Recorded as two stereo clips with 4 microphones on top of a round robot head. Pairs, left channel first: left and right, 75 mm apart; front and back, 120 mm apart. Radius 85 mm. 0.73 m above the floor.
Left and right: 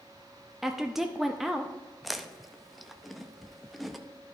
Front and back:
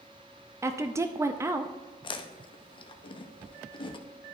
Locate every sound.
0.6 s a woman speaking: 170° right, 0.5 m
2.0 s chewing: straight ahead, 0.7 m